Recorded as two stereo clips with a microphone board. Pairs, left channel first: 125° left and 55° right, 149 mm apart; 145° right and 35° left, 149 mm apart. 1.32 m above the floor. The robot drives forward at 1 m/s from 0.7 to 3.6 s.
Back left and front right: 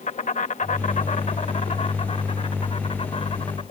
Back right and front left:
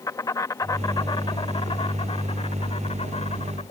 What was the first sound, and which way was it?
An insect, 150° left.